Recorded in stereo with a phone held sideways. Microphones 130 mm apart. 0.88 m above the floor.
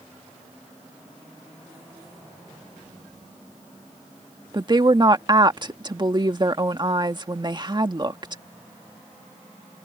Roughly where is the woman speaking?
Right.